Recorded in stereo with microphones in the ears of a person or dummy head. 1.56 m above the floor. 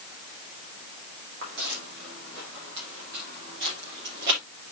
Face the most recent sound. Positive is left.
turn(degrees=-50)  # may be behind; listen again after turning